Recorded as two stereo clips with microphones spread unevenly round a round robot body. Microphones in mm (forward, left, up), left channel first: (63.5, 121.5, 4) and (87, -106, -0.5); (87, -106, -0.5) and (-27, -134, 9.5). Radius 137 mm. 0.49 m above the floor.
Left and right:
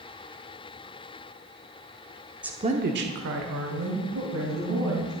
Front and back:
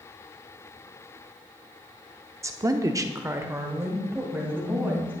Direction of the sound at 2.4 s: 155° right.